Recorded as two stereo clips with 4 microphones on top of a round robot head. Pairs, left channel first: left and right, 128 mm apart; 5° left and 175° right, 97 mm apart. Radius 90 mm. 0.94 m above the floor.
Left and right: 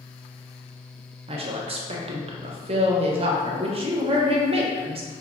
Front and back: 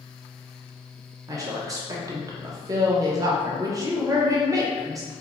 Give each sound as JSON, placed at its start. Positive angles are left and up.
{"t": 1.3, "sound": "a woman speaking", "azimuth_deg": -125, "distance_m": 0.6}